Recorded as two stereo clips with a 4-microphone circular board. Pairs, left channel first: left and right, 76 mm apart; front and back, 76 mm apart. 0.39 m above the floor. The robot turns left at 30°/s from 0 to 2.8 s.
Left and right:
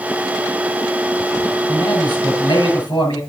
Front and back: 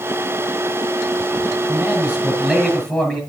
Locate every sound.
1.7 s a man speaking: 115° left, 7 m; by 3.2 s 80° left, 7 m